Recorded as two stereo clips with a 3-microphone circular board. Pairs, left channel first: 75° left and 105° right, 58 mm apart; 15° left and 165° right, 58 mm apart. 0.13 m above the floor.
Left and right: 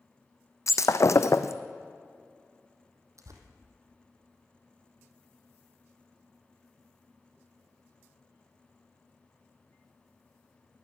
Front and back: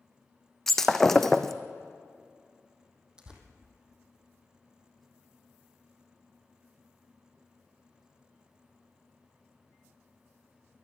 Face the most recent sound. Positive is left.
turn(degrees=-90)